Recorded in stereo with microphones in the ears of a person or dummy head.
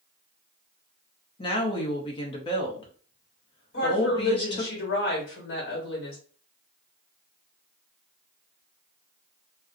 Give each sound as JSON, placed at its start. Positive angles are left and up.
{"t": 1.4, "sound": "a woman speaking", "side_deg": 25, "distance_m": 0.7}
{"t": 3.7, "sound": "a woman speaking", "side_deg": 60, "distance_m": 1.2}